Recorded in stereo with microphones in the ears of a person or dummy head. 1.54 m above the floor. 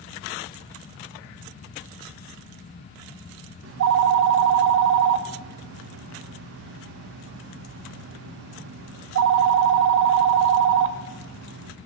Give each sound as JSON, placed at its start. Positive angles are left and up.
{"t": 3.6, "sound": "a phone ringing", "side_deg": -60, "distance_m": 1.1}